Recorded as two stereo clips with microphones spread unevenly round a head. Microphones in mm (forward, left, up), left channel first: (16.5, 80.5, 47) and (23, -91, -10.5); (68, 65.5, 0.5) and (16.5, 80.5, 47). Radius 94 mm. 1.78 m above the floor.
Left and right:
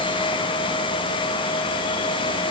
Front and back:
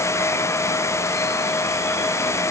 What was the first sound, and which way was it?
Only background noise.